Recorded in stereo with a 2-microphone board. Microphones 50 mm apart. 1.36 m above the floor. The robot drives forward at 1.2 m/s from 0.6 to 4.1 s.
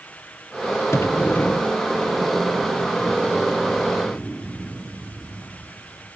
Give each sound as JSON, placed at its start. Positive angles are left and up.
{"t": 0.9, "sound": "a sliding door", "side_deg": 60, "distance_m": 0.6}